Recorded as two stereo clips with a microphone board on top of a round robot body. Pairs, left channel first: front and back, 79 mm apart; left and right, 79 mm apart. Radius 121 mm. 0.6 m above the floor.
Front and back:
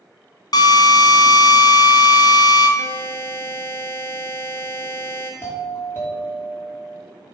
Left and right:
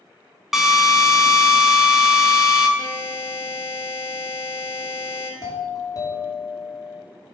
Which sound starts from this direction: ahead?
A drill, at 0.5 s.